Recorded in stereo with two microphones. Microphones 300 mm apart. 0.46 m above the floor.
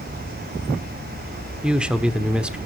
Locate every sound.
1.6 s a man speaking: 5° right (ahead or behind), 1.0 m